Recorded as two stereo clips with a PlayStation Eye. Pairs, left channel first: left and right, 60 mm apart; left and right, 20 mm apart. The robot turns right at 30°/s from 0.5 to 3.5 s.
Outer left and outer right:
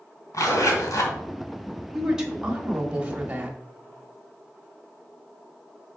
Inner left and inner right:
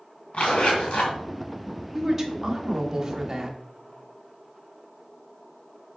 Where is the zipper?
65° left (ahead or behind), 2 m.